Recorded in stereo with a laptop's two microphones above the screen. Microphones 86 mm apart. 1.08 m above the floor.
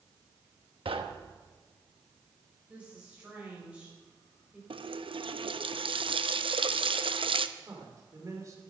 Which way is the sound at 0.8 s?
85° right.